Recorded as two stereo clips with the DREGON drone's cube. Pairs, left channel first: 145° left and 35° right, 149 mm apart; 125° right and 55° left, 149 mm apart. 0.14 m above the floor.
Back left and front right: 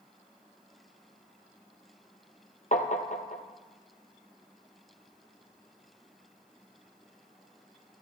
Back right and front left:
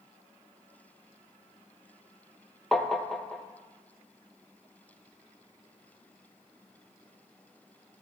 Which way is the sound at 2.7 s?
150° left.